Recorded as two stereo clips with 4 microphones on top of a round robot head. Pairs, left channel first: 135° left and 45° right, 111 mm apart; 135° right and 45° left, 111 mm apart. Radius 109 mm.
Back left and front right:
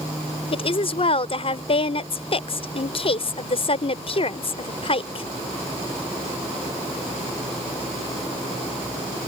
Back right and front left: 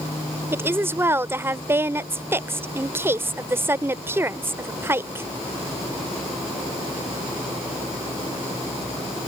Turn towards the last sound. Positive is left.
turn(degrees=110)